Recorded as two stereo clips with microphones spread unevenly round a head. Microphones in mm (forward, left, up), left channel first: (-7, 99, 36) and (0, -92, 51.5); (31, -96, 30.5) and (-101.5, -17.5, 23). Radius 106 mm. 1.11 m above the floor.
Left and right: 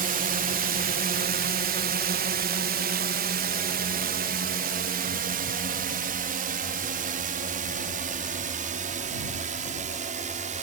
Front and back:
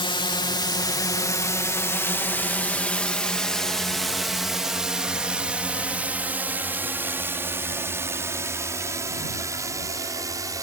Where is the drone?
70° right; by 10.6 s 145° right.